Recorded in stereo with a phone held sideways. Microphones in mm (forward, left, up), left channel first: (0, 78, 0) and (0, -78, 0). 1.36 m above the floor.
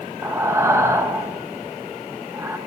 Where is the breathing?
20° right (ahead or behind), 0.6 m.